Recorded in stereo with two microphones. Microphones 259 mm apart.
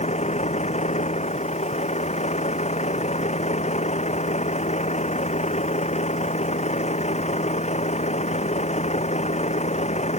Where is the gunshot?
I don't hear a gunshot.